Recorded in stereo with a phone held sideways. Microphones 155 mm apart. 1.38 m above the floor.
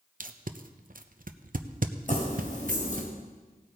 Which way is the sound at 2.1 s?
55° left (ahead or behind).